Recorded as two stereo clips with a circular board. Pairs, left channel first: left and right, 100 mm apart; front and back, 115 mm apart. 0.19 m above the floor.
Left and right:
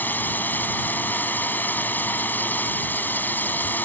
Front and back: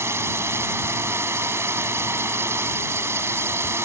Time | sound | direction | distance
0.0 | a drone | 140° left | ?